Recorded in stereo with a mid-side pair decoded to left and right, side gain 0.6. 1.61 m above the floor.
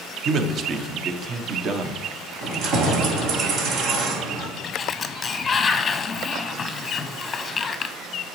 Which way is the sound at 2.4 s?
65° right.